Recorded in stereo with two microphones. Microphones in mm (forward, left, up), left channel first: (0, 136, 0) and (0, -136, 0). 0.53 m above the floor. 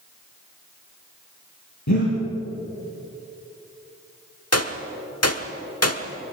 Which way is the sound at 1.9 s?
90° left.